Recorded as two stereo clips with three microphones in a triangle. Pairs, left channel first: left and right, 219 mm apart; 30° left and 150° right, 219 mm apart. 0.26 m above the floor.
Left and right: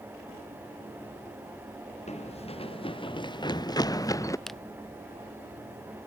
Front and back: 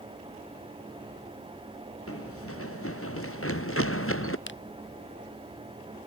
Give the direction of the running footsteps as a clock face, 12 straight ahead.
11 o'clock.